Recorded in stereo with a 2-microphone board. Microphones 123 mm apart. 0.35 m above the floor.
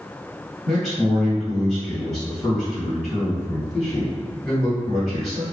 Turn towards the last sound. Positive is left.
turn(degrees=5)  # may be behind; listen again after turning